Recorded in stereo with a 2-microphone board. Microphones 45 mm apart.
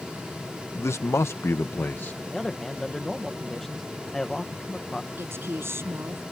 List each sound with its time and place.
0.8 s a man speaking: 75° left (ahead or behind); by 2.2 s 50° left (ahead or behind)
2.3 s a man speaking: 10° left (ahead or behind)
5.2 s a woman speaking: 65° right (ahead or behind)